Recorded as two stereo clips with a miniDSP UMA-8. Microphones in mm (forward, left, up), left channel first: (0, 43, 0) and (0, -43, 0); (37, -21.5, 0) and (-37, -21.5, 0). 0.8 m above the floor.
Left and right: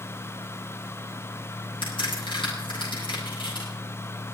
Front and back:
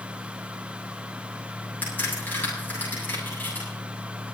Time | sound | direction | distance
1.8 | a crack | 65° left | 8 m